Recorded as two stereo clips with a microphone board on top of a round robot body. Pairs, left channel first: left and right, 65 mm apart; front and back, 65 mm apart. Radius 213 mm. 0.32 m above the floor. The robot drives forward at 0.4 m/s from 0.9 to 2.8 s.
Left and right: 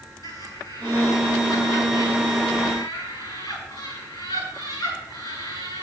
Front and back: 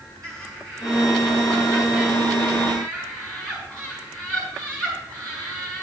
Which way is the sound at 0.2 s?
80° left.